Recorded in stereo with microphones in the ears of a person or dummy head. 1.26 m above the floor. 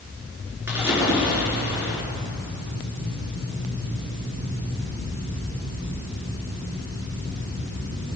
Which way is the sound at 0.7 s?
15° right (ahead or behind).